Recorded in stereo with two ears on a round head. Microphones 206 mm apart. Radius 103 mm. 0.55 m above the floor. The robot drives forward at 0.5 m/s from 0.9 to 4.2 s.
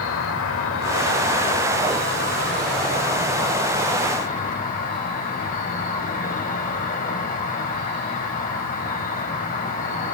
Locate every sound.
0.0 s an insect: 65° left (ahead or behind), 1.9 m; by 10.1 s 40° left (ahead or behind), 3 m